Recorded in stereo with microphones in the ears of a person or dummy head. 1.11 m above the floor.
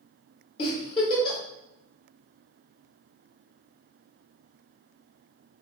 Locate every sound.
0.6 s a giggle: 25° left (ahead or behind), 1.8 m